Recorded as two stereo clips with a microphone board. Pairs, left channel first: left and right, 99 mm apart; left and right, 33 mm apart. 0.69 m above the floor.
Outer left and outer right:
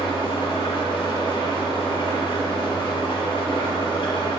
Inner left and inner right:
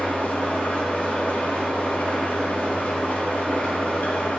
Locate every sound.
0.0 s an engine running: 55° left (ahead or behind), 1.9 m